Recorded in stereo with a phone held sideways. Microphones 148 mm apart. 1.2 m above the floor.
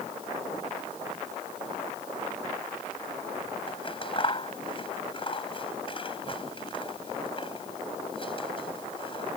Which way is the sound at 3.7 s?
35° left (ahead or behind).